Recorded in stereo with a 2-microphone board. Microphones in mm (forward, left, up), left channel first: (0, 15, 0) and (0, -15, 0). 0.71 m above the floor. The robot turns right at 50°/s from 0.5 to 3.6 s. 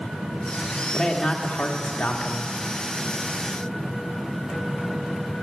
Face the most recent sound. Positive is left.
turn(degrees=145)